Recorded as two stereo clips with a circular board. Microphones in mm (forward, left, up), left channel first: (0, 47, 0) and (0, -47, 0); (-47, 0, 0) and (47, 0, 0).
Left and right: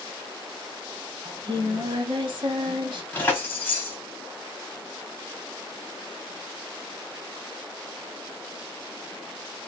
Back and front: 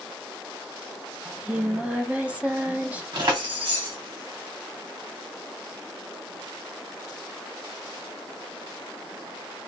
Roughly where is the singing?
Right.